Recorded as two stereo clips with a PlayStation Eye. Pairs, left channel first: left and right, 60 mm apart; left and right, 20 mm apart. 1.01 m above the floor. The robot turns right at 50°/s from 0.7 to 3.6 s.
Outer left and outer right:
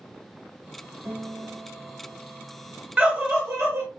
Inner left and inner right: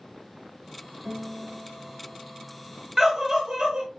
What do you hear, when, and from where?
1.1 s a guitar: 110° right, 1.8 m; by 2.9 s 15° right, 1.8 m
3.0 s a scream: 165° right, 1.5 m; by 3.9 s 135° right, 1.5 m